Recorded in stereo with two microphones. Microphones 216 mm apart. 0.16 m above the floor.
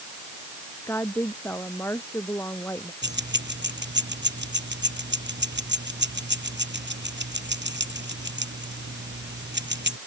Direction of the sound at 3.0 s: 55° right (ahead or behind).